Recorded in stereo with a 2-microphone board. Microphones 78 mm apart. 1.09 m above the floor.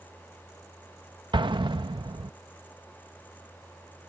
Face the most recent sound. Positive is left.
turn(degrees=-85)